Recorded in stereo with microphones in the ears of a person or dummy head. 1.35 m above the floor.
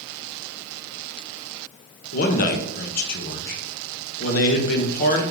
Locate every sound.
2.1 s a man speaking: 50° left (ahead or behind), 0.5 m